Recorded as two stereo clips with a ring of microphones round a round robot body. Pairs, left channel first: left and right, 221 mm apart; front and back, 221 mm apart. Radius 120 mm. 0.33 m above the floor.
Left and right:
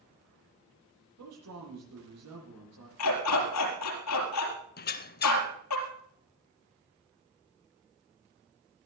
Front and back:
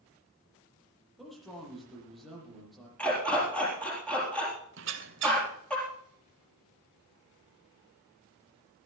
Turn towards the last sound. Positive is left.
turn(degrees=135)